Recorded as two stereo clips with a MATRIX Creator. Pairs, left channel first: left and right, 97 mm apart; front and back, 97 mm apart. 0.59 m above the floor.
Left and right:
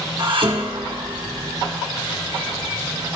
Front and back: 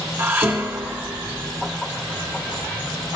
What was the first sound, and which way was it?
Dishes clattering, 115° right.